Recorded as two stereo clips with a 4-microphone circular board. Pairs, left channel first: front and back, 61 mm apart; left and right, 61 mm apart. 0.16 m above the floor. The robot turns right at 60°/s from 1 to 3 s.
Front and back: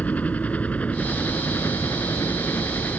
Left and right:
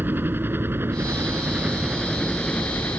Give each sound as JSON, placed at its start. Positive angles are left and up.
{"t": 0.0, "sound": "a helicopter", "azimuth_deg": -55}